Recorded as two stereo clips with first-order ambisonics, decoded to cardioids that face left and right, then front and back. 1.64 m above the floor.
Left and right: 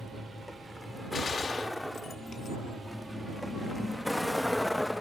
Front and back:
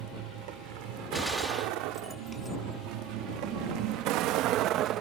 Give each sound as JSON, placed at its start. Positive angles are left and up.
{"t": 0.0, "sound": "a vehicle", "azimuth_deg": 175}
{"t": 1.1, "sound": "a gunshot", "azimuth_deg": 90}